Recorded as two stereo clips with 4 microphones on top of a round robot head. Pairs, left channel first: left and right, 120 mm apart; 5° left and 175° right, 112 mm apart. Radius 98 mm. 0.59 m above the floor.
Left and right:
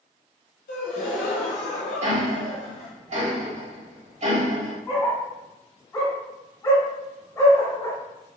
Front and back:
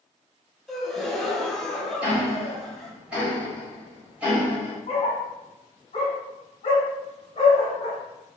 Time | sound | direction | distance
0.7 | a gasp | 95° left | 0.6 m
2.0 | ticking | 95° right | 1.6 m
4.9 | a dog barking | 25° left | 0.9 m